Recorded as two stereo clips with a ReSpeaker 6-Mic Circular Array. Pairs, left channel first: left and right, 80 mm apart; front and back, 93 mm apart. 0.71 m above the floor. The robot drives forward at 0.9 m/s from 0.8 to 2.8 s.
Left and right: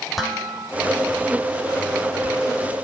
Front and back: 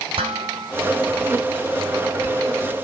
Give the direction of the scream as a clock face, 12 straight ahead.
I don't hear a scream.